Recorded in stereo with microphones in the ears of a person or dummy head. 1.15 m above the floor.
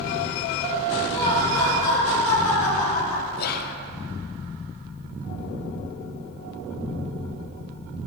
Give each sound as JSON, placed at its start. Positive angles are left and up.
{"t": 1.1, "sound": "laughter", "side_deg": 30, "distance_m": 4.0}
{"t": 3.4, "sound": "whispering", "side_deg": 50, "distance_m": 1.0}